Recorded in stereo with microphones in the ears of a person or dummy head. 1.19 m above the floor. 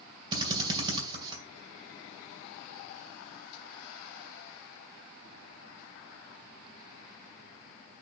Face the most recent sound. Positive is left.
turn(degrees=-25)  # may be behind; listen again after turning